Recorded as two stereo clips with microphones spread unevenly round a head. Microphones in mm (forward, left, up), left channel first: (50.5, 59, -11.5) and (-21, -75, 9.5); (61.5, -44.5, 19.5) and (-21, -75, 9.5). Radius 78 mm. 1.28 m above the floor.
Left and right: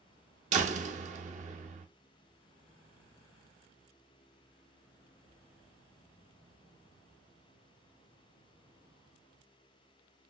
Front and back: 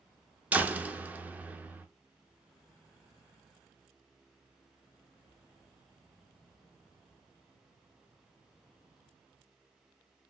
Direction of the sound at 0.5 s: 85° right.